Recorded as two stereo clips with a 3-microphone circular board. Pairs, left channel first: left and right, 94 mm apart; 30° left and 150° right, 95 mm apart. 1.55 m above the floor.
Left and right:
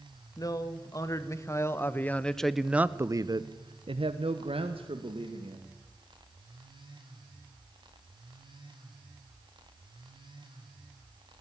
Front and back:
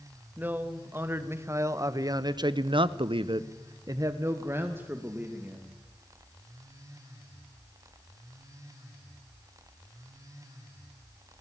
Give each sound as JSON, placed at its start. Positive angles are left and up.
{"t": 0.4, "sound": "a man speaking", "azimuth_deg": 140, "distance_m": 2.0}